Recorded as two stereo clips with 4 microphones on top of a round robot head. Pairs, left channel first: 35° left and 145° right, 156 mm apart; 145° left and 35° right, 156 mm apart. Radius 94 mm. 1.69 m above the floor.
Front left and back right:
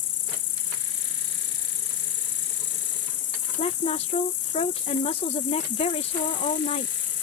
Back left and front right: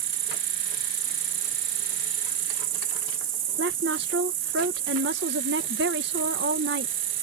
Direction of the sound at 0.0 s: 5° right.